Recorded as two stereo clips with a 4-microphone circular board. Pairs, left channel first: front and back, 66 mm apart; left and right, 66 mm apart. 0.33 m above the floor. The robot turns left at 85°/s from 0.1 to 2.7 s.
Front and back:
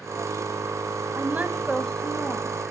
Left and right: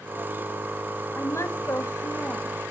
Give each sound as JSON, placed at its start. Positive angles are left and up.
{"t": 1.1, "sound": "a woman speaking", "azimuth_deg": 140, "distance_m": 2.0}